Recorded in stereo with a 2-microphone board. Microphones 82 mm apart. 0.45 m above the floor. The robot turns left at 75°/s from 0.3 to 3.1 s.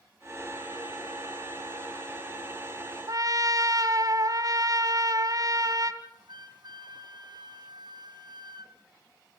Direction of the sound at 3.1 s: 50° right (ahead or behind).